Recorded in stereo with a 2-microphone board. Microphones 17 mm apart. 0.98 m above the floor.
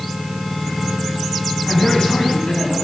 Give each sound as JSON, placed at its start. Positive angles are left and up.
{"t": 1.7, "sound": "a man speaking", "side_deg": 50, "distance_m": 6.5}